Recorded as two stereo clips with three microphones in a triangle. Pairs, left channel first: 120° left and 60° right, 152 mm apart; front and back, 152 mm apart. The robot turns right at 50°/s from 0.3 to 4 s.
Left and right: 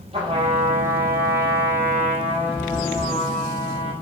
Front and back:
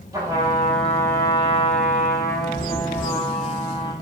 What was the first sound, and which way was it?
A trumpet, 110° right.